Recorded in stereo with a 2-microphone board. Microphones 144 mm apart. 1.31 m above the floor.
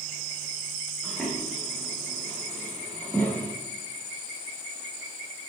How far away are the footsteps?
About 3.5 m.